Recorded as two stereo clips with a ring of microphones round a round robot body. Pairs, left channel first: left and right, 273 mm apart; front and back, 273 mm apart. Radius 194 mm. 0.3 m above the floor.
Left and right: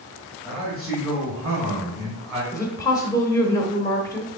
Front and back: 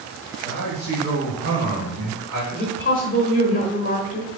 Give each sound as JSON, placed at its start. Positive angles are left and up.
{"t": 0.4, "sound": "a man speaking", "azimuth_deg": 165, "distance_m": 1.4}
{"t": 2.5, "sound": "a woman speaking", "azimuth_deg": 20, "distance_m": 1.1}